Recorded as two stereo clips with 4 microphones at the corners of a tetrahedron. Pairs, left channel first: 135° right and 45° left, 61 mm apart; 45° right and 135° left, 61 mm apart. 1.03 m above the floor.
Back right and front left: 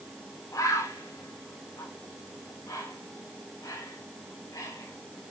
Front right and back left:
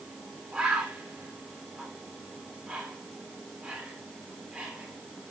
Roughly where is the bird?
Behind right.